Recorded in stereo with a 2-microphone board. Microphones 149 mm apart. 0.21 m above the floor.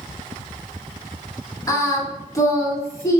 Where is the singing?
20° left (ahead or behind), 1.0 m.